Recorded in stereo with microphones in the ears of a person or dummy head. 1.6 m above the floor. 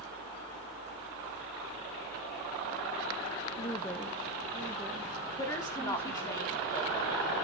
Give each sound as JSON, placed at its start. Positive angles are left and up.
{"t": 3.6, "sound": "a woman speaking", "side_deg": 20, "distance_m": 1.0}
{"t": 5.4, "sound": "a woman speaking", "side_deg": 15, "distance_m": 3.5}